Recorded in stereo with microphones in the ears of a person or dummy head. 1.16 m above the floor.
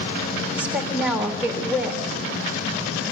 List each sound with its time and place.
0.5 s a woman speaking: 5° right (ahead or behind), 3 m